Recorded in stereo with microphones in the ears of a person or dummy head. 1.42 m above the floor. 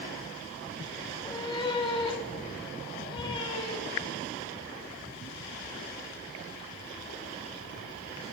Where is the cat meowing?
30° left (ahead or behind), 2.0 m.